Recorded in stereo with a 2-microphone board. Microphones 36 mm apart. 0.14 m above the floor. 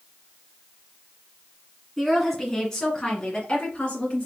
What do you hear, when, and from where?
2.0 s a woman speaking: centre (ahead or behind), 1.6 m; by 4.3 s 35° left (ahead or behind), 1.8 m